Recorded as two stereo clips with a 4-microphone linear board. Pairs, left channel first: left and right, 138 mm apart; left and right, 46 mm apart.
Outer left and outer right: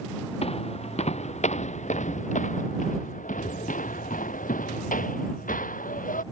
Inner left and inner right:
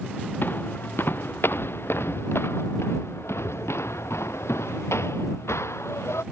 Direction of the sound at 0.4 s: 50° left (ahead or behind).